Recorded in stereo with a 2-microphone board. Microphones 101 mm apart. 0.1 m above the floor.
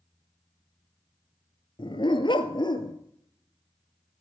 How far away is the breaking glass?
I don't hear breaking glass.